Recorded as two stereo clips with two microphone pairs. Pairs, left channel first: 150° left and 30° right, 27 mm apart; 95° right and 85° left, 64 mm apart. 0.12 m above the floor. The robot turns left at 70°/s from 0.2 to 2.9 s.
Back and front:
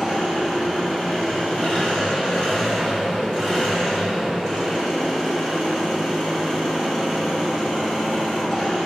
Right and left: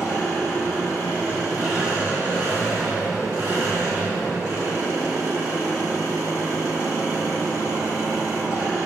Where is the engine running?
90° right, 1.4 m; by 8.9 s 80° left, 1.4 m.